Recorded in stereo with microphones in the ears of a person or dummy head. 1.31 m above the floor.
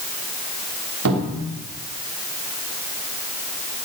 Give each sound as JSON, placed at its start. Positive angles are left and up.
{"t": 1.1, "sound": "a cupboard door", "side_deg": -90, "distance_m": 3.0}